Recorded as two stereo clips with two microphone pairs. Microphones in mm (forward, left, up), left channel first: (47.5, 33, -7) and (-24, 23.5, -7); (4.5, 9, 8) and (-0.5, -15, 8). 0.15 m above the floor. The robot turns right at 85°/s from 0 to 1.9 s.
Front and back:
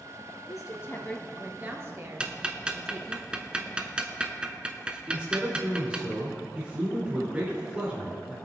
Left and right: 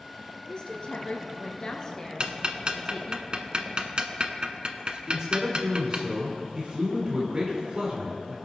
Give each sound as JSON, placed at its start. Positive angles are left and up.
{"t": 0.5, "sound": "a woman speaking", "azimuth_deg": 25, "distance_m": 2.0}
{"t": 2.2, "sound": "ticking", "azimuth_deg": -100, "distance_m": 0.9}
{"t": 5.1, "sound": "a man speaking", "azimuth_deg": -110, "distance_m": 2.0}